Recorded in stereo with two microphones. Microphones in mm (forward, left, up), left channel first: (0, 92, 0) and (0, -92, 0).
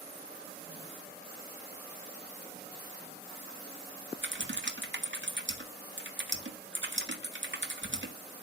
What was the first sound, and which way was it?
Typing on a keyboard, 75° right (ahead or behind).